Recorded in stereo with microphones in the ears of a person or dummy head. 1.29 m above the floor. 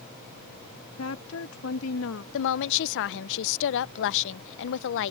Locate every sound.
1.0 s a woman speaking: 80° left
2.3 s a woman speaking: 70° left (ahead or behind)